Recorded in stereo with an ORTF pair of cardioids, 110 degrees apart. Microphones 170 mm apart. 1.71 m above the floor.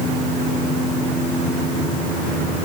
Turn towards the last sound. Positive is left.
No sound to turn to.